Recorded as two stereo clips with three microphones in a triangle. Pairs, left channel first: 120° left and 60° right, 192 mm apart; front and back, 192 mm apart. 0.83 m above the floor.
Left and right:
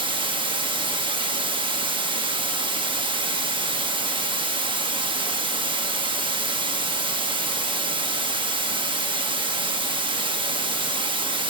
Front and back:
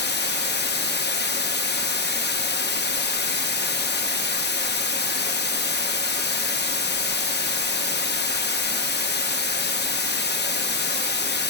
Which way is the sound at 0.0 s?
Straight ahead.